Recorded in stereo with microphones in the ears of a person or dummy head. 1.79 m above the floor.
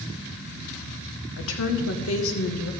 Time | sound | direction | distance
1.4 | a woman speaking | 80° left | 2 m